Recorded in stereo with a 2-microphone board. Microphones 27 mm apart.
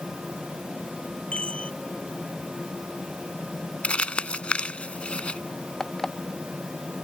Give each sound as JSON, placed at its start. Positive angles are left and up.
{"t": 1.3, "sound": "a chime", "side_deg": 40}
{"t": 3.8, "sound": "crumpling", "side_deg": 40}
{"t": 5.8, "sound": "an alarm clock", "side_deg": 10}